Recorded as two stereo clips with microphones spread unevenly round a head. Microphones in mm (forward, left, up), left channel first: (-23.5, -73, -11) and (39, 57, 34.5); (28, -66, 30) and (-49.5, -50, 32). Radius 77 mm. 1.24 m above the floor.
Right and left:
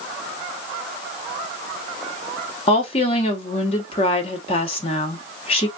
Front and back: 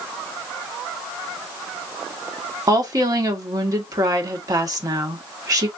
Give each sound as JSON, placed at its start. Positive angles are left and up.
{"t": 2.7, "sound": "a woman speaking", "azimuth_deg": -155, "distance_m": 1.3}